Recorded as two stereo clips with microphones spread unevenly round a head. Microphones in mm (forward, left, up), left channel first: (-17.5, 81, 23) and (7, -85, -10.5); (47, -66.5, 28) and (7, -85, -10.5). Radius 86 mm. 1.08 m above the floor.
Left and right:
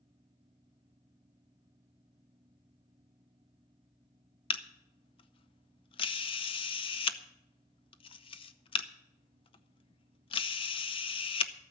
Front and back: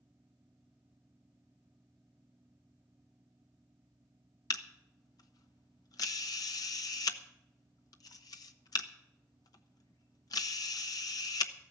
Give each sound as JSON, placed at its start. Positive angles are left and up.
{"t": 4.5, "sound": "a camera shutter", "azimuth_deg": 40, "distance_m": 0.7}